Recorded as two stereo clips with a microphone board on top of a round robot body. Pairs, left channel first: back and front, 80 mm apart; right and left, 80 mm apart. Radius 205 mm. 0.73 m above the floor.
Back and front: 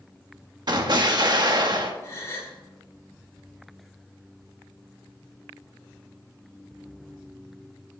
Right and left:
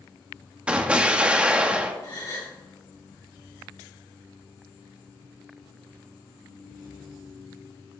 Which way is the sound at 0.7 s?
15° left.